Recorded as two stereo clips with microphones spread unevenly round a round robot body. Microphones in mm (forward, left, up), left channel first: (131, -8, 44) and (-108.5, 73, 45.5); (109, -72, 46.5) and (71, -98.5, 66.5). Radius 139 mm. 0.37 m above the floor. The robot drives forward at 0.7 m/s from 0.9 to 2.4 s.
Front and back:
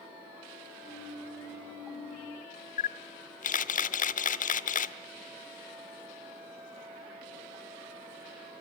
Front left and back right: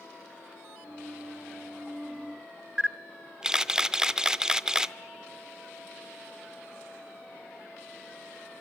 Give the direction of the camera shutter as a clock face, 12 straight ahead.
1 o'clock.